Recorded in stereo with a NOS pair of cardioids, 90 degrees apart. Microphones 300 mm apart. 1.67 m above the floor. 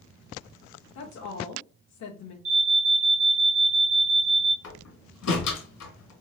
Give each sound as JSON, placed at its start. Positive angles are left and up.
{"t": 0.9, "sound": "a woman speaking", "azimuth_deg": 65, "distance_m": 1.1}
{"t": 2.5, "sound": "an alarm", "azimuth_deg": -25, "distance_m": 1.7}
{"t": 4.6, "sound": "a door slam", "azimuth_deg": 60, "distance_m": 1.9}